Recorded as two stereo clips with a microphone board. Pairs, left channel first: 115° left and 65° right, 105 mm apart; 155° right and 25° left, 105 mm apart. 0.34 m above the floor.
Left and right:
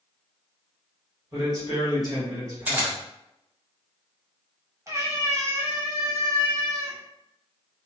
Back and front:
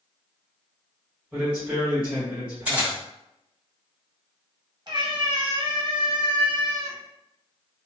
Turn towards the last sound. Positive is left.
turn(degrees=-15)